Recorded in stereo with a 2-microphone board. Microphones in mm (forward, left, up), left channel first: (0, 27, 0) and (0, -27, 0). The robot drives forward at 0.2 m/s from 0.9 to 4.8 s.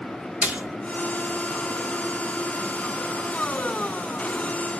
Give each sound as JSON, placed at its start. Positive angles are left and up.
{"t": 0.4, "sound": "a splash", "side_deg": -25, "distance_m": 0.5}